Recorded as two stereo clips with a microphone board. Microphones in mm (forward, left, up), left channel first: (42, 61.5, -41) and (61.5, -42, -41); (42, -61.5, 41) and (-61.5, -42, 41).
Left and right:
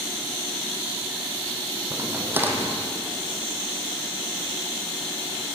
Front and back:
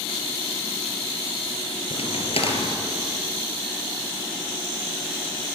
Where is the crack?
10° right, 3.5 m.